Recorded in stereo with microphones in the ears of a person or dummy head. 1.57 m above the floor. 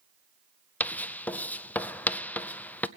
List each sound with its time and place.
0.8 s writing: 10° left (ahead or behind), 0.5 m